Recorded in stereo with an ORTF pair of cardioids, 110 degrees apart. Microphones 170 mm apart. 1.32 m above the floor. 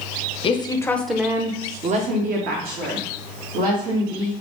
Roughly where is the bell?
No bell in this recording.